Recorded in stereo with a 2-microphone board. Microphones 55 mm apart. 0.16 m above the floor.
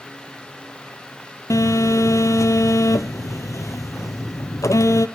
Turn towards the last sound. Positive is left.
turn(degrees=80)